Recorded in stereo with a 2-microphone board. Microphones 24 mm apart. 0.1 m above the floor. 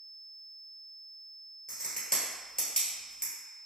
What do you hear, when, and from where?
1.7 s a crack: 35° left (ahead or behind), 1.4 m